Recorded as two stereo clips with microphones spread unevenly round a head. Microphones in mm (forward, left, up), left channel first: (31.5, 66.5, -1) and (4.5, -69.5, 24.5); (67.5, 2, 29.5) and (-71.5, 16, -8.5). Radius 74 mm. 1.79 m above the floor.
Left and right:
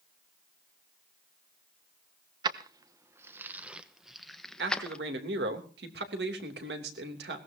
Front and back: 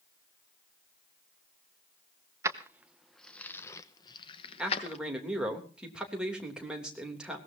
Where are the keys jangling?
105° right, 1.0 m; by 5.0 s 10° right, 1.4 m.